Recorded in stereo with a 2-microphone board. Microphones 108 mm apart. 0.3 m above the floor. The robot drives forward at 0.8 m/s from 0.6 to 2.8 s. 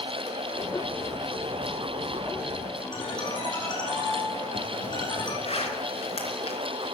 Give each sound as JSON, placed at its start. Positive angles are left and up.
{"t": 2.9, "sound": "a ringtone", "side_deg": 45, "distance_m": 9.5}
{"t": 5.5, "sound": "a zipper", "side_deg": 70, "distance_m": 4.5}